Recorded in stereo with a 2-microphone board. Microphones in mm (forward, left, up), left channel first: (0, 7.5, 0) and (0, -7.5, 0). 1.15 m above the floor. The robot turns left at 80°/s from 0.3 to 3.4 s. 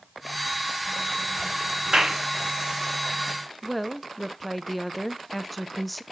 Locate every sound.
1.9 s a clap: 70° right (ahead or behind), 1.7 m; by 2.2 s 45° right (ahead or behind), 1.7 m
3.6 s a woman speaking: 5° left (ahead or behind), 0.6 m